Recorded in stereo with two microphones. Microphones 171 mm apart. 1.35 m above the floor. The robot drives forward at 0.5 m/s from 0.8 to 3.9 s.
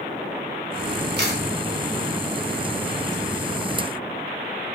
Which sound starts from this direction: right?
A camera shutter, at 1.2 s.